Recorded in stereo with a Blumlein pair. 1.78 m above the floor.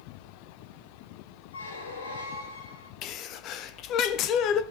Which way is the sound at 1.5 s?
70° left.